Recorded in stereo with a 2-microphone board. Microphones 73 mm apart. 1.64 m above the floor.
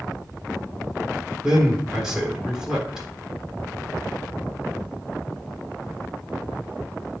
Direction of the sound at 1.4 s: 5° right (ahead or behind).